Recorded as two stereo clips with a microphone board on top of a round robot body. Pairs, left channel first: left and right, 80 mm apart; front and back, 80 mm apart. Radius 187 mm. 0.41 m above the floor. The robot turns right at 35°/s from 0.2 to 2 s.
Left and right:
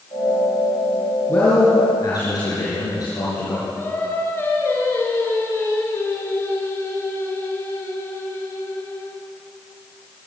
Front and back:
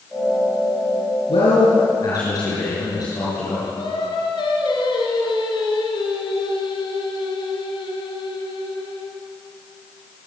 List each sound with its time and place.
1.3 s a man speaking: 20° left, 7.5 m; by 3.7 s 45° left, 7.5 m
3.8 s singing: 25° left, 4 m